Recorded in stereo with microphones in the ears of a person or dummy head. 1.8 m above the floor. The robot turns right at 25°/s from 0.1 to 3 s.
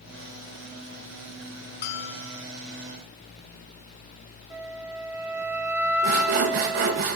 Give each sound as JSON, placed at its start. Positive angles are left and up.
{"t": 1.8, "sound": "a bell", "side_deg": 55, "distance_m": 1.0}
{"t": 4.5, "sound": "a flute", "side_deg": -10, "distance_m": 1.0}
{"t": 6.0, "sound": "sawing", "side_deg": -45, "distance_m": 1.2}